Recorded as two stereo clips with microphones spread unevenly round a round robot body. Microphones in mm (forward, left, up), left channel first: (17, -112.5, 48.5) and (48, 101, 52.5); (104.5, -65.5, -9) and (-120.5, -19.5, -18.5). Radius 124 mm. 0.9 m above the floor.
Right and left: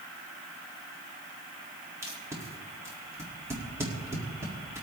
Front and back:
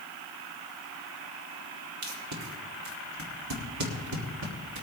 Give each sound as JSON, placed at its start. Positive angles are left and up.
{"t": 2.0, "sound": "tape being pulled", "azimuth_deg": 160, "distance_m": 1.8}